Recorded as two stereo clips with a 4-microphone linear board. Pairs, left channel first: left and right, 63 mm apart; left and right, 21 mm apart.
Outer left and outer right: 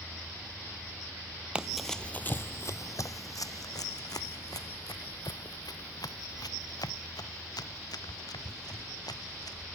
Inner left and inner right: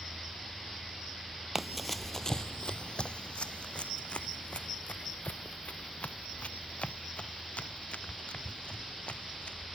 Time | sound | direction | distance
1.6 | running footsteps | 15° right (ahead or behind) | ?